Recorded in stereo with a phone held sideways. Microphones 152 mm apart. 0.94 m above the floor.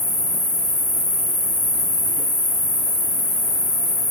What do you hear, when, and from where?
0.0 s an insect: 55° right (ahead or behind), 1.7 m